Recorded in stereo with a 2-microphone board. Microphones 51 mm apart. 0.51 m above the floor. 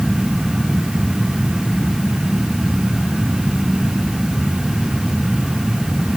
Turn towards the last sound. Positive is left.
No sound to turn to.